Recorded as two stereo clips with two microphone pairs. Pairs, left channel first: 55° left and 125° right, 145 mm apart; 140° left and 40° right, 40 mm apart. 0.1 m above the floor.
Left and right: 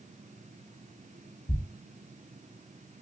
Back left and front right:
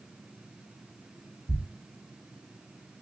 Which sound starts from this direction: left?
A thud, at 1.5 s.